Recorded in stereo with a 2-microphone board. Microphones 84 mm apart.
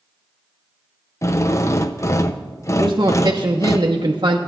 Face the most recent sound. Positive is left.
turn(degrees=-55)  # may be behind; listen again after turning